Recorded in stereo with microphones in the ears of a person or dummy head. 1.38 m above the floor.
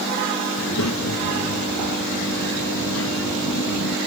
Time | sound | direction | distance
0.6 | a child speaking | 90° left | ?